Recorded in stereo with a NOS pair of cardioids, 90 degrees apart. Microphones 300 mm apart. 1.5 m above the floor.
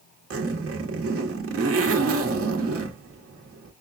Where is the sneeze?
I don't hear a sneeze.